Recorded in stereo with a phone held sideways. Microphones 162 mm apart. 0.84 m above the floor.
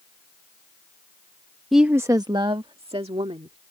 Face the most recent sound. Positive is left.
turn(degrees=-40)  # may be behind; listen again after turning